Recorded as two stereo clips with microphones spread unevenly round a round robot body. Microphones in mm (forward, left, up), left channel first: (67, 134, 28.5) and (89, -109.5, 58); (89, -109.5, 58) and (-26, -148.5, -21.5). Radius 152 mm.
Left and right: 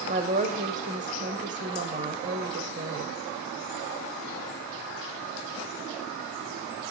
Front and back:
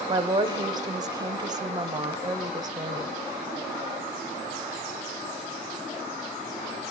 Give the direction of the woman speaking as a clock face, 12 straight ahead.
5 o'clock.